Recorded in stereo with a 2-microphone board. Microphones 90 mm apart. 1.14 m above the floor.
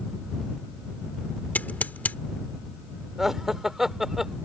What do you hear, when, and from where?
1.6 s scissors: 20° left (ahead or behind)
3.2 s laughter: 5° right (ahead or behind)